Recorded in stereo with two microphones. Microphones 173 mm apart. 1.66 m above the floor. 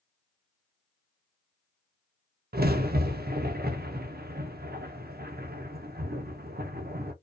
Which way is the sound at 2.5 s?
65° right (ahead or behind).